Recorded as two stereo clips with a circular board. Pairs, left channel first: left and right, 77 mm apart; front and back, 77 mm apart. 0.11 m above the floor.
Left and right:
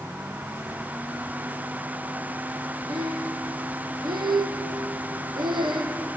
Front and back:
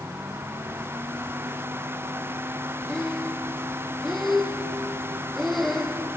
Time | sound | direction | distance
2.9 | breathing | 90° right | 2 m